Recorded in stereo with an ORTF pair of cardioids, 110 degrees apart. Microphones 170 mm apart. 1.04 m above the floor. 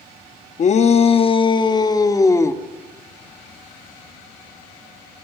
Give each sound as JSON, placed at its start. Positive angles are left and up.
{"t": 0.6, "sound": "a shout", "azimuth_deg": 45, "distance_m": 1.6}